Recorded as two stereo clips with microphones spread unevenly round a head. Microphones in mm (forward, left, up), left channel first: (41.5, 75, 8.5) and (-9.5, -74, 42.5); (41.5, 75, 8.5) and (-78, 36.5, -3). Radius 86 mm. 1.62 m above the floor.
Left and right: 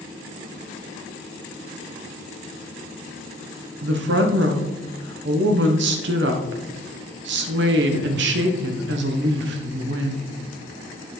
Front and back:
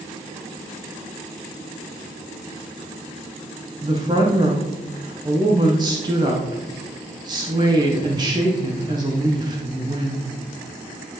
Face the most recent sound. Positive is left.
turn(degrees=-95)